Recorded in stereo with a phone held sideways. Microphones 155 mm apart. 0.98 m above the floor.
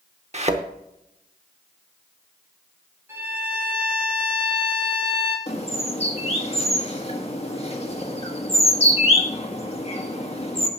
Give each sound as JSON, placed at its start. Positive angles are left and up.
{"t": 0.3, "sound": "a thud", "side_deg": -45, "distance_m": 0.8}
{"t": 3.1, "sound": "a violin", "side_deg": -15, "distance_m": 4.0}
{"t": 5.5, "sound": "a bird", "side_deg": 40, "distance_m": 1.6}